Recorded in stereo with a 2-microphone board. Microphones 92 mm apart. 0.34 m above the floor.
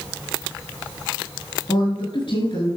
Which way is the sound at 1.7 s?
65° left (ahead or behind).